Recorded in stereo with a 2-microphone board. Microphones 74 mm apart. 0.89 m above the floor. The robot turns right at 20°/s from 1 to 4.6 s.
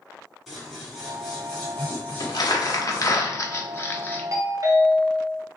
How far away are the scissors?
About 2 m.